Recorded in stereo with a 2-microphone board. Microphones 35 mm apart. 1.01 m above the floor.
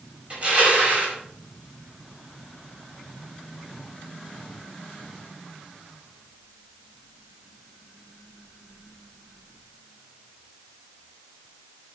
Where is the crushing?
35° right (ahead or behind), 5 m.